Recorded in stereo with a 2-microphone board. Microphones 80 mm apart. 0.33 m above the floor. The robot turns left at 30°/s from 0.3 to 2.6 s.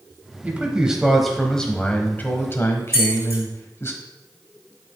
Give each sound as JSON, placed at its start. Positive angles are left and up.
{"t": 0.4, "sound": "a man speaking", "azimuth_deg": -155, "distance_m": 1.3}
{"t": 2.9, "sound": "keys jangling", "side_deg": -30, "distance_m": 4.0}